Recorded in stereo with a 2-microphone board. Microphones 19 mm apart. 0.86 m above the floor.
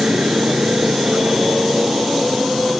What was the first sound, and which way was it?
A motorcycle, 80° right.